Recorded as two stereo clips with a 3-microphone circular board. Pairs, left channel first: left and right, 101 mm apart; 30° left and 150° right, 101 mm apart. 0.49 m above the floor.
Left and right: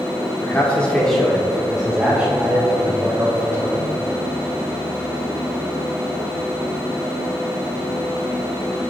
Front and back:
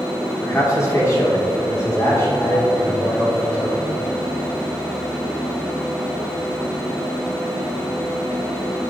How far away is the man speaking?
About 1.3 m.